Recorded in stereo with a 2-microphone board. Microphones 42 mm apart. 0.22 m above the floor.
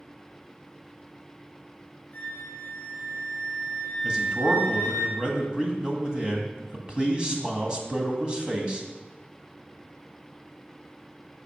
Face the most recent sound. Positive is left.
turn(degrees=-20)  # may be behind; listen again after turning